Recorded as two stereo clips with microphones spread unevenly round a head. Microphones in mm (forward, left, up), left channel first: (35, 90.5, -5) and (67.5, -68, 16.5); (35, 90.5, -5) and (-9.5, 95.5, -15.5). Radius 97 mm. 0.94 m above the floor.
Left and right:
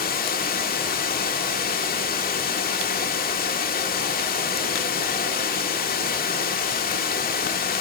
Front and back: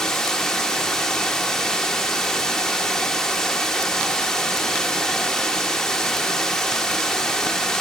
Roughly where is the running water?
Left.